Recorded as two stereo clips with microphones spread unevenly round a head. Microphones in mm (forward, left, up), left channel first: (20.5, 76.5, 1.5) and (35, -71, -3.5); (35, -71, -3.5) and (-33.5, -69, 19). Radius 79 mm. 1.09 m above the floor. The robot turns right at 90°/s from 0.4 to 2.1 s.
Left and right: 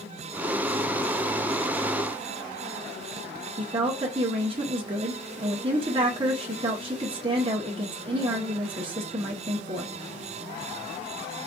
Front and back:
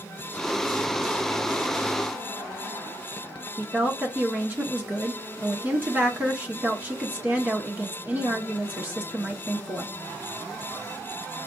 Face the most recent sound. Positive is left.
turn(degrees=-105)